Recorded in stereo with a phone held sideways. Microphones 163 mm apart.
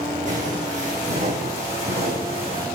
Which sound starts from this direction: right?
Footsteps, at 0.3 s.